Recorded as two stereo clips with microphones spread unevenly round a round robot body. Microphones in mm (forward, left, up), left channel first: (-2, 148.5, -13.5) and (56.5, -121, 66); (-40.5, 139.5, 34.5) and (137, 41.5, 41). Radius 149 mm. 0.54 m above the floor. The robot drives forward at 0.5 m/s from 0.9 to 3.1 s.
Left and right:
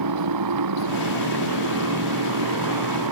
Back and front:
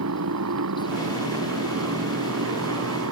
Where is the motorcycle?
60° right.